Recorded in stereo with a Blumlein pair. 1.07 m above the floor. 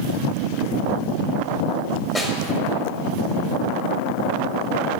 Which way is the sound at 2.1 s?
5° left.